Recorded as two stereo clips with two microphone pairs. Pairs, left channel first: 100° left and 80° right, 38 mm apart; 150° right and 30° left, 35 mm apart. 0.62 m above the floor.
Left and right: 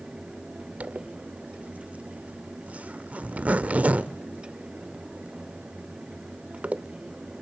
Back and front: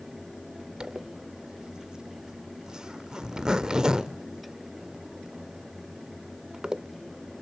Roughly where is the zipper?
Ahead right.